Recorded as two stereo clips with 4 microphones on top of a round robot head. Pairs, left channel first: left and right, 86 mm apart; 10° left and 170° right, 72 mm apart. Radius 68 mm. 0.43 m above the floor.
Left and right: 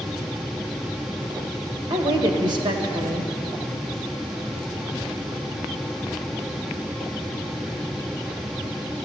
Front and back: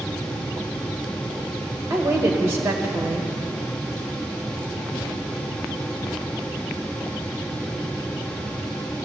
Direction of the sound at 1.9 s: 120° right.